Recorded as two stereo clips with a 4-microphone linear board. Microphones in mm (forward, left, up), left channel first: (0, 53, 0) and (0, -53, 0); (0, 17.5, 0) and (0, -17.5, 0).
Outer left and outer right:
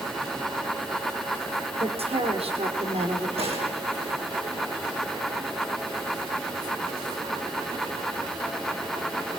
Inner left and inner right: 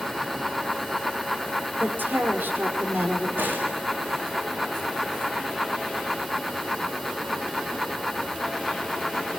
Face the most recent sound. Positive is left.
turn(degrees=-70)  # may be behind; listen again after turning